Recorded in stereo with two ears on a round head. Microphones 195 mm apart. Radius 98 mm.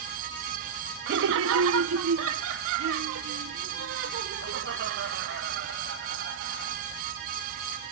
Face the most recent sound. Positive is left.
turn(degrees=-55)  # may be behind; listen again after turning